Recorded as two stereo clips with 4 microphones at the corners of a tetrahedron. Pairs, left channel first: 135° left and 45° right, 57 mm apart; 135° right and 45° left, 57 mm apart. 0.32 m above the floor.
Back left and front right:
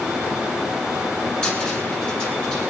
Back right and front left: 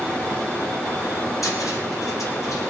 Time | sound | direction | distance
1.4 | a cupboard door | 150° right | 4.5 m